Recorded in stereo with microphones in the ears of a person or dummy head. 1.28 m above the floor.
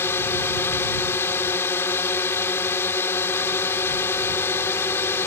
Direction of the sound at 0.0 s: 20° left (ahead or behind).